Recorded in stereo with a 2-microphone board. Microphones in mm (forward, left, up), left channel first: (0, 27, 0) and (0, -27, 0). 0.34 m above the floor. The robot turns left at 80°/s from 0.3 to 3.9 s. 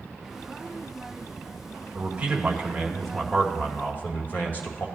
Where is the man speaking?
95° right, 1.9 m; by 4.9 s 110° left, 1.9 m.